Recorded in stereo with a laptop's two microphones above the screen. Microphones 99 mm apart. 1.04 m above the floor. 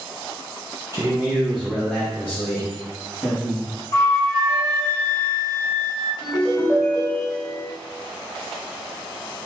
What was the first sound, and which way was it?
A man speaking, 35° right (ahead or behind).